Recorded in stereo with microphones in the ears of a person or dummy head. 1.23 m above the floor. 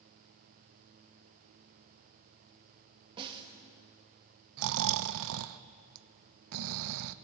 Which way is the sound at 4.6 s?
65° right (ahead or behind).